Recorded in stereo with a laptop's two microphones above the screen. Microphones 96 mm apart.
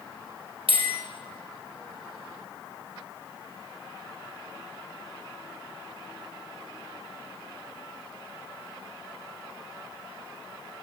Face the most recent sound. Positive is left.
turn(degrees=-70)  # may be behind; listen again after turning